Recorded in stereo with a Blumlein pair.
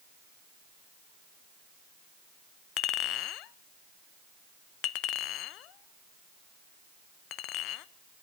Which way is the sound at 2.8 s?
40° left.